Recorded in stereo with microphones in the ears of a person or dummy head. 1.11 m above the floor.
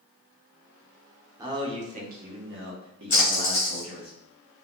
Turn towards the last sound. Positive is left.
turn(degrees=35)  # may be behind; listen again after turning